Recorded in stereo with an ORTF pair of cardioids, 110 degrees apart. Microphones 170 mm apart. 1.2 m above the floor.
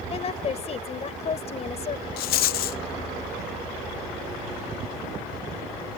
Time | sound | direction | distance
0.1 | a woman speaking | 40° left | ?
2.2 | a rattle | 65° left | ?